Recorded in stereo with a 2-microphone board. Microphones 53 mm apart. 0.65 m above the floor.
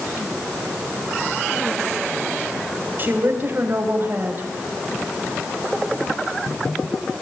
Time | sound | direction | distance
3.0 | a woman speaking | 35° right (ahead or behind) | 3.5 m